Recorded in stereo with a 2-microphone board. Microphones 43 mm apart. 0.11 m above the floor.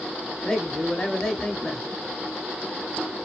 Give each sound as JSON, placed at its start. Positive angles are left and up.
{"t": 0.4, "sound": "a man speaking", "side_deg": 15, "distance_m": 1.1}